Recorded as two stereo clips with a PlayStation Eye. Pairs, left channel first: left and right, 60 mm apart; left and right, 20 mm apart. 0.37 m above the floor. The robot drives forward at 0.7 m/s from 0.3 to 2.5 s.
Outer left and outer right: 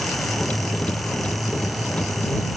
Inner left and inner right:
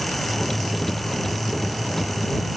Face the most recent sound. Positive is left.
No sound to turn to.